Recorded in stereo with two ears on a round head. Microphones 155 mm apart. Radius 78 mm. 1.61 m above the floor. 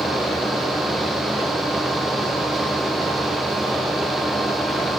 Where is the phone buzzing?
No phone buzzing in this recording.